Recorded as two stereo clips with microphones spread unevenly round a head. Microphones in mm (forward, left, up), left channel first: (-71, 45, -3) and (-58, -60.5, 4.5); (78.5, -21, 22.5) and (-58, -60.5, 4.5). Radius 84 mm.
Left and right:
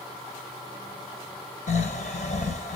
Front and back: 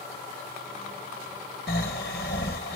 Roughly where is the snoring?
Ahead left.